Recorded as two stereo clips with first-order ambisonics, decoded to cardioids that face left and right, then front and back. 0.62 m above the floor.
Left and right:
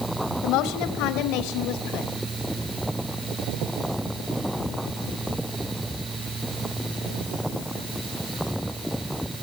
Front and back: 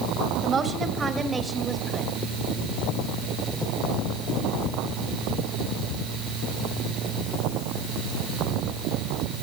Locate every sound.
0.4 s a woman speaking: 115° left, 2.5 m; by 2.1 s 90° left, 2 m